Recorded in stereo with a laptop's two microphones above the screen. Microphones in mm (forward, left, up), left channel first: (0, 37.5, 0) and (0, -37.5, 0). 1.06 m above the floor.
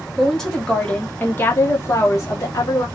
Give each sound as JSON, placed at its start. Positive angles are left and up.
{"t": 0.2, "sound": "a woman speaking", "side_deg": 0, "distance_m": 1.0}